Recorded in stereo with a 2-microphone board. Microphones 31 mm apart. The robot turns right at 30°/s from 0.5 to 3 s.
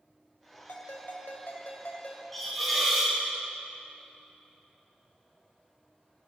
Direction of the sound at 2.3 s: 5° left (ahead or behind).